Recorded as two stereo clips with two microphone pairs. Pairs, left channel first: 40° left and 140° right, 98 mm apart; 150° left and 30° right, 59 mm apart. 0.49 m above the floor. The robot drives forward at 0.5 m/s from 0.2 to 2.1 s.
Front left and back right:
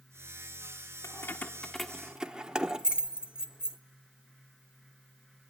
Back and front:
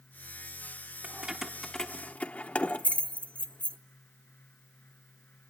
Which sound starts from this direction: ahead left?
Keys jangling, at 1.0 s.